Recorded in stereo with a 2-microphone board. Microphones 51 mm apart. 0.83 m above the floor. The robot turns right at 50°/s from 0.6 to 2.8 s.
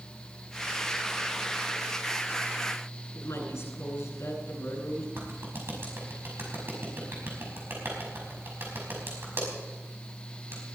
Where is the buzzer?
I don't hear a buzzer.